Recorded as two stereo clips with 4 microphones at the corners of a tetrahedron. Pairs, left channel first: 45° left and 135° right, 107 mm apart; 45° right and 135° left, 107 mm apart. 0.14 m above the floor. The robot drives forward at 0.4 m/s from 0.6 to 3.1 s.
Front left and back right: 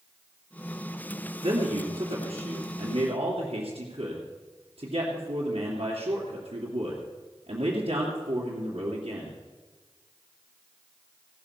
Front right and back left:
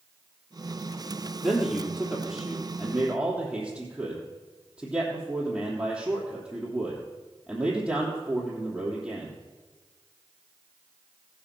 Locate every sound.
1.4 s a man speaking: 130° right, 2.5 m; by 9.4 s 140° right, 3 m